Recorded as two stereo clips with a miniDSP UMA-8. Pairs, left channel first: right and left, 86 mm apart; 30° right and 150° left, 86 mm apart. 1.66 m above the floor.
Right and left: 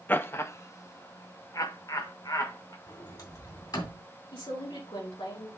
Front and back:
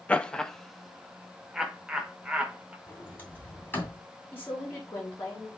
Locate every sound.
0.1 s laughter: 80° right, 0.5 m; by 2.8 s 130° right, 1.6 m
2.9 s a sliding door: 90° right, 2.5 m
4.3 s a woman speaking: 95° right, 4.5 m